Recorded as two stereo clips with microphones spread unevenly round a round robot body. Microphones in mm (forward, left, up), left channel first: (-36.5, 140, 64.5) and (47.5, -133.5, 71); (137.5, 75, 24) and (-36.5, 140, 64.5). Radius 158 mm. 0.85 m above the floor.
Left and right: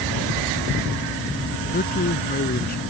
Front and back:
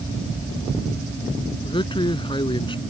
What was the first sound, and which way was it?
A man speaking, 45° left.